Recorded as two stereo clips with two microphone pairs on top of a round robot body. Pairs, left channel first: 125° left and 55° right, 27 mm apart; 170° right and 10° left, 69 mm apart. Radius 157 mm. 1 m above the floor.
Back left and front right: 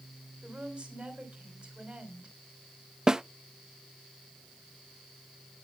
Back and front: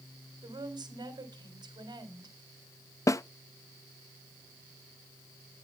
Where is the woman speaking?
5° left, 3.5 m.